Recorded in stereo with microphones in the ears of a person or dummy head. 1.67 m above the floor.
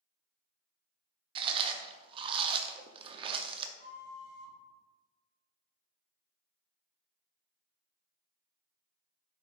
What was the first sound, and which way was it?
Chewing, 30° right (ahead or behind).